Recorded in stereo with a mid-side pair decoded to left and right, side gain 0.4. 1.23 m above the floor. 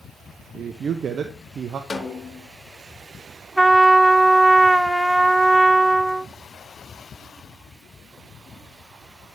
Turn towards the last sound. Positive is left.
turn(degrees=-15)